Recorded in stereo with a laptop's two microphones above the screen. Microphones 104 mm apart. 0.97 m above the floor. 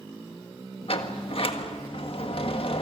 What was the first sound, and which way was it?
A sliding door, 60° left (ahead or behind).